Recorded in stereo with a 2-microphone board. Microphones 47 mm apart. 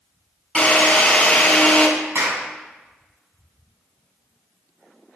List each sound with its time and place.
0.6 s a drill: 20° left (ahead or behind), 2.0 m
2.1 s a clap: 55° right (ahead or behind), 2 m